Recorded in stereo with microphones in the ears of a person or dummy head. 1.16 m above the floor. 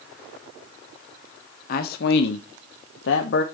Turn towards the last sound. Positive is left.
turn(degrees=55)  # may be behind; listen again after turning